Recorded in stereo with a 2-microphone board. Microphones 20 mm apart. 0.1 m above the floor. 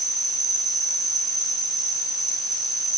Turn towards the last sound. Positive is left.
turn(degrees=0)  # may be behind; listen again after turning